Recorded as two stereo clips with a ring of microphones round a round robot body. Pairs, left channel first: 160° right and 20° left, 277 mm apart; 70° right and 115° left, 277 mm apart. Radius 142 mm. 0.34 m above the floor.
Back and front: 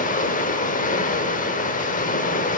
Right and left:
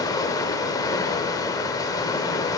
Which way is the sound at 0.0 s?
135° right.